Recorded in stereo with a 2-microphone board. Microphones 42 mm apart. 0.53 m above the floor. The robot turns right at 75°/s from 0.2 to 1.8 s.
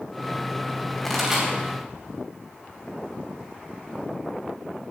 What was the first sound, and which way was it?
A pop, 10° left (ahead or behind).